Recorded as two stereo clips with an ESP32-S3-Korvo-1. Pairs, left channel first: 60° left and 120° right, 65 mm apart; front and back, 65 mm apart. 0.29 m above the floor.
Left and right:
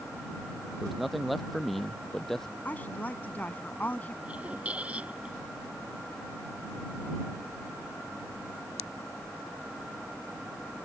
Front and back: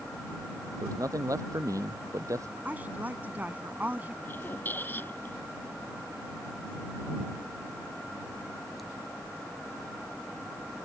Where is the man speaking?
155° left; by 2.5 s 145° left.